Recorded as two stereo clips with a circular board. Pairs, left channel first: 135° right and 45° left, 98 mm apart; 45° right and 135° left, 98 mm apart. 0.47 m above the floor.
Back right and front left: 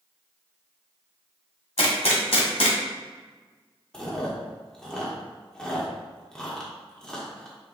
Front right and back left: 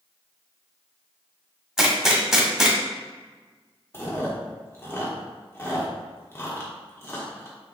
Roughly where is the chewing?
Ahead right.